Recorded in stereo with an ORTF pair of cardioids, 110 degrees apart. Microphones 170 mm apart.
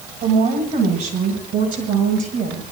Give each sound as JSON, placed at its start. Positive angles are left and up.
{"t": 0.2, "sound": "a woman speaking", "azimuth_deg": -65, "distance_m": 6.5}